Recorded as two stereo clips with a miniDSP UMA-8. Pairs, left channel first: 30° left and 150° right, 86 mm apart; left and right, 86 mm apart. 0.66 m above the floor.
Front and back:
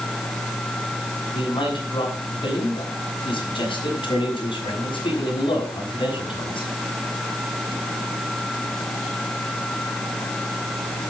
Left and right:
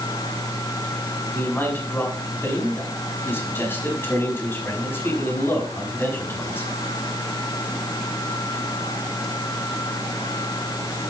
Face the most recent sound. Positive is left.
turn(degrees=25)